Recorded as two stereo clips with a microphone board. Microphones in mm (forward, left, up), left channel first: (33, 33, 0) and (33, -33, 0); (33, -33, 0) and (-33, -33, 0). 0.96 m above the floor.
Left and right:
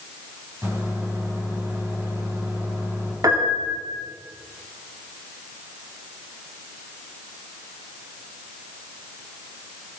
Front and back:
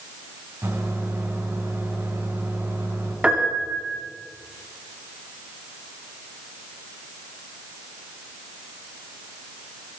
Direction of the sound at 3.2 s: 105° right.